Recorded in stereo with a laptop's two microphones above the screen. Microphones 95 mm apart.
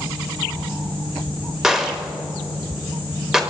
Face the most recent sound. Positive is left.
turn(degrees=-5)  # may be behind; listen again after turning